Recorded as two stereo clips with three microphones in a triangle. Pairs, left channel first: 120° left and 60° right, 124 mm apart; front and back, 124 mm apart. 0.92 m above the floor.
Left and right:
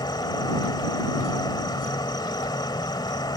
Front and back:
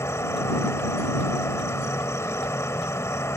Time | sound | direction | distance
0.0 | an insect | 65° left | ?